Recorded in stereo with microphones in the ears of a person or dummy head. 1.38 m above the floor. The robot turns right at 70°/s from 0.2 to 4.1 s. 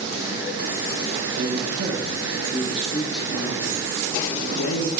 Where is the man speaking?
95° right, 1.3 m; by 4.9 s 95° left, 1.3 m.